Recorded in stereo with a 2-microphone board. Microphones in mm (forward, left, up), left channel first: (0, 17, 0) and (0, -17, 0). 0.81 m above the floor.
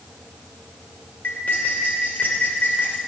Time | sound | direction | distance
1.2 | cutlery clinking | 75° left (ahead or behind) | 1.7 m